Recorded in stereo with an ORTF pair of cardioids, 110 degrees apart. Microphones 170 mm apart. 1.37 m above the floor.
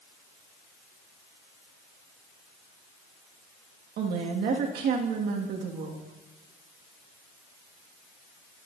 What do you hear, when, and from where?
4.0 s a woman speaking: 70° right, 2 m